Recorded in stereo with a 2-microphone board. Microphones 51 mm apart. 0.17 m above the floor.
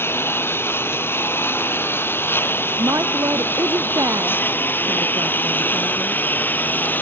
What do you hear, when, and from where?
0.0 s a lawn mower: 50° left (ahead or behind); by 7.0 s 35° left (ahead or behind)
2.8 s a woman speaking: 85° right